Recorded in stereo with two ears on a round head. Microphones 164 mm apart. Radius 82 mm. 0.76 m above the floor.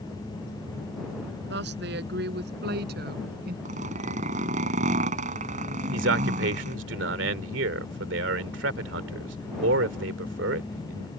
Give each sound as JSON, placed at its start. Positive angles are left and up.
{"t": 1.5, "sound": "a woman speaking", "side_deg": -65}
{"t": 3.6, "sound": "a zipper", "side_deg": -45}
{"t": 5.9, "sound": "a man speaking", "side_deg": -75}